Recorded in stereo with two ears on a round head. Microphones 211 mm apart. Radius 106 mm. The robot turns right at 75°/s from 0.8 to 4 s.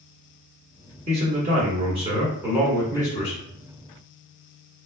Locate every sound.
1.1 s a man speaking: 115° right, 1.4 m; by 3.4 s 60° left, 1.4 m